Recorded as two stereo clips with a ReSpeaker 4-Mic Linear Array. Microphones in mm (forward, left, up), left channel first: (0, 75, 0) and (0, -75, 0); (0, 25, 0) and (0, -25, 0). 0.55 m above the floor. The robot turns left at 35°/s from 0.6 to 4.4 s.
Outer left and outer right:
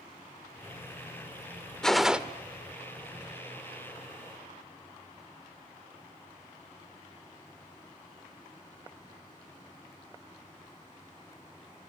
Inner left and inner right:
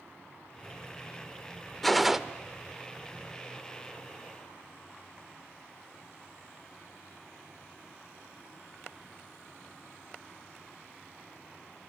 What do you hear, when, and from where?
1.8 s a gunshot: 5° left (ahead or behind), 0.8 m; by 2.2 s 10° right (ahead or behind), 0.8 m